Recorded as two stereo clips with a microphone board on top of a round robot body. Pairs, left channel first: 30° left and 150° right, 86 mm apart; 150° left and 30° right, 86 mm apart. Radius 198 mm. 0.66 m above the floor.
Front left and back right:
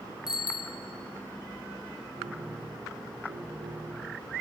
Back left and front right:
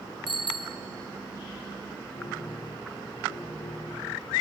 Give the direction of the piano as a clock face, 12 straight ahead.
6 o'clock.